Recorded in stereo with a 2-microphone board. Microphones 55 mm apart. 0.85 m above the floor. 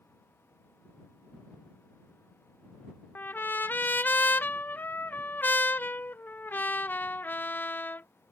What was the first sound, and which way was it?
A trumpet, 40° left (ahead or behind).